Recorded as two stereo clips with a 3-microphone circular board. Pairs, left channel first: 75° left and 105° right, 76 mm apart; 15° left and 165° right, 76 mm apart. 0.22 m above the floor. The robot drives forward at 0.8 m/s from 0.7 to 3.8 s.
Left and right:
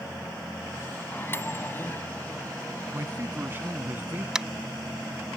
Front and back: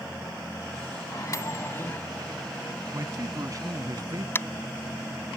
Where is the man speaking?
150° right; by 4.2 s 160° right.